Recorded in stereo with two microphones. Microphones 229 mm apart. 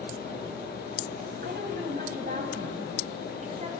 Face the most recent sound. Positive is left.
turn(degrees=-30)  # may be behind; listen again after turning